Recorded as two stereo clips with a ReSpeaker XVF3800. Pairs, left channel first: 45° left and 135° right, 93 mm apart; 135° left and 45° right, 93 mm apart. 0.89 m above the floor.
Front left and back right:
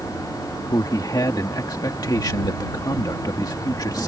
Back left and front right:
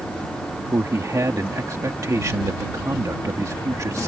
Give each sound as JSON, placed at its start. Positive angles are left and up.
{"t": 0.7, "sound": "a man speaking", "azimuth_deg": 5}